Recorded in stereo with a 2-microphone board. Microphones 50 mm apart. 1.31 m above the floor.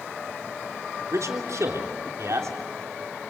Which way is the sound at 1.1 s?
85° right.